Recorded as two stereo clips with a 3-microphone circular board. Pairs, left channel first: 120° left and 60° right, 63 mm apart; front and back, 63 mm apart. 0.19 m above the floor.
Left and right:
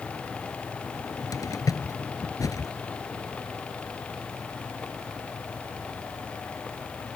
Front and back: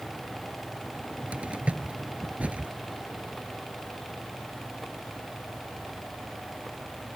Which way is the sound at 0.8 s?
110° left.